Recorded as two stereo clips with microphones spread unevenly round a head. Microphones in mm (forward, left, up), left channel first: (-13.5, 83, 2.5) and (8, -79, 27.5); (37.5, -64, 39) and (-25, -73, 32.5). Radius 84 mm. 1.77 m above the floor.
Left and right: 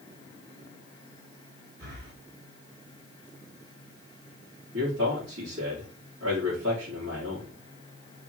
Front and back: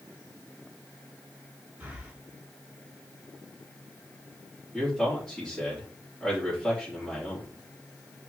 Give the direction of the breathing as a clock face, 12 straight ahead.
4 o'clock.